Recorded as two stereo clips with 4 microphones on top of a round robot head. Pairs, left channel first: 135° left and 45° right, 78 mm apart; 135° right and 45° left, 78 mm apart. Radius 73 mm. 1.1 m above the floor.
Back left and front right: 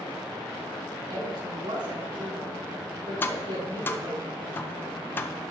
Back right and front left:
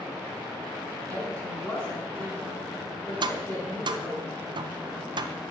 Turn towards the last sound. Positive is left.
turn(degrees=70)